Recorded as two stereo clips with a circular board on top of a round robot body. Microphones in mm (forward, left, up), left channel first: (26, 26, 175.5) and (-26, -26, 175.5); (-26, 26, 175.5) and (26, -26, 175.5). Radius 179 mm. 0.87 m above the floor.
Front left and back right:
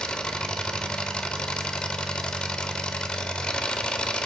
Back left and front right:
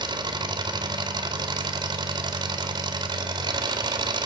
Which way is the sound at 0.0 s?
30° right.